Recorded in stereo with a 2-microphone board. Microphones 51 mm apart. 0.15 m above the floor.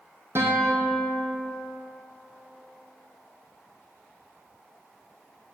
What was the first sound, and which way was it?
A guitar, 55° right (ahead or behind).